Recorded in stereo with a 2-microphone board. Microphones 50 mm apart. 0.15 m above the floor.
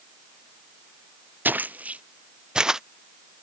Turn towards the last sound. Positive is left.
turn(degrees=-10)  # may be behind; listen again after turning